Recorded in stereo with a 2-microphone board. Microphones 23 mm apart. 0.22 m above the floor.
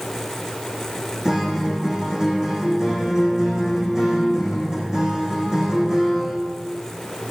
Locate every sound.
1.2 s a guitar: 20° right (ahead or behind), 4.5 m